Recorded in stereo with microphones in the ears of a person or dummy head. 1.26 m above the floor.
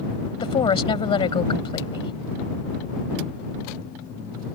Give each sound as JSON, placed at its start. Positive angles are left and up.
{"t": 0.4, "sound": "a woman speaking", "side_deg": 30}